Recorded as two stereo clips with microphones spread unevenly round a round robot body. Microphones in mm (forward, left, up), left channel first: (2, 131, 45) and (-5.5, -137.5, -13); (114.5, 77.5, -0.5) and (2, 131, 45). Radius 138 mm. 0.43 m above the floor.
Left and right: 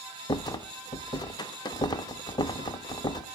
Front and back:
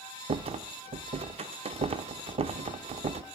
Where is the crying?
I don't hear crying.